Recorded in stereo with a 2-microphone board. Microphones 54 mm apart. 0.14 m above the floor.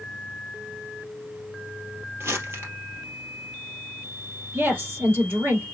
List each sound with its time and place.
2.2 s crumpling: 50° right (ahead or behind), 2 m
4.5 s a woman speaking: 45° right (ahead or behind), 4 m